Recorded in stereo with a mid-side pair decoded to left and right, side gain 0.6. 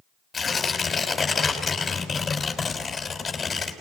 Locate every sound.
0.3 s tearing paper: 25° left, 4.5 m